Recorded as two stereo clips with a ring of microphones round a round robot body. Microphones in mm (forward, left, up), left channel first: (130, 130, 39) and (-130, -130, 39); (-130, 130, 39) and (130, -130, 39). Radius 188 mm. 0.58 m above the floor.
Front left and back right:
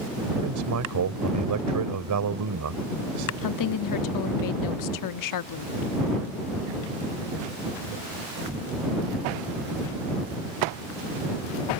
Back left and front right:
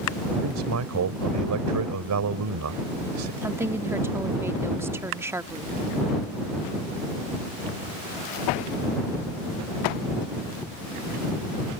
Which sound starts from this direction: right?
A man speaking, at 0.4 s.